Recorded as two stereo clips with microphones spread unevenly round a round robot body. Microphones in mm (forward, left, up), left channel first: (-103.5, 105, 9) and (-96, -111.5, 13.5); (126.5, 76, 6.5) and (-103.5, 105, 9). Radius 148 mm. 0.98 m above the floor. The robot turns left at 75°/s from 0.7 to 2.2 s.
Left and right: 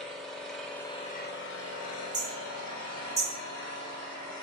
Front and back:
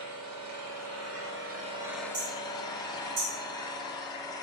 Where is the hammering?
160° right, 1.8 m; by 3.3 s 165° right, 1.8 m.